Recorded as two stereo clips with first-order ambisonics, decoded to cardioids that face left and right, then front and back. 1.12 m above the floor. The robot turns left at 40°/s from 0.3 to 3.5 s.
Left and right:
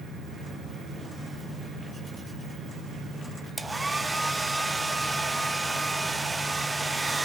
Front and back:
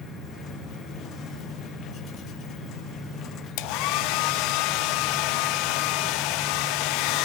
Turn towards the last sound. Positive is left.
turn(degrees=-10)